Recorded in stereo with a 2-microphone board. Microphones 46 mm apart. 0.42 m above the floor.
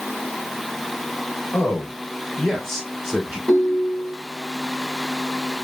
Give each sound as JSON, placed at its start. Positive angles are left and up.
{"t": 1.5, "sound": "a man speaking", "side_deg": 45, "distance_m": 1.0}
{"t": 3.5, "sound": "a ringtone", "side_deg": 15, "distance_m": 1.1}